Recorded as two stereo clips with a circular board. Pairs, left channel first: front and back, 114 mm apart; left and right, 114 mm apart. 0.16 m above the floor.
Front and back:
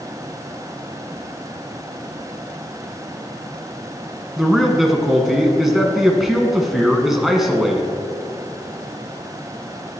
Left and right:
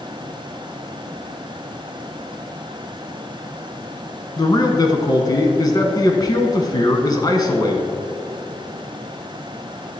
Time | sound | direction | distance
4.4 | a man speaking | 95° left | 1.2 m